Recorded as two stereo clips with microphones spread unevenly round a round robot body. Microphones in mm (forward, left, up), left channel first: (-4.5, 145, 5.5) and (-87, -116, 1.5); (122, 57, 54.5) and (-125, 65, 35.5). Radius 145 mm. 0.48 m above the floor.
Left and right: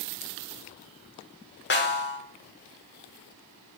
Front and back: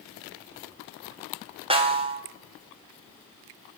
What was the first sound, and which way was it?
A snare drum, 115° left.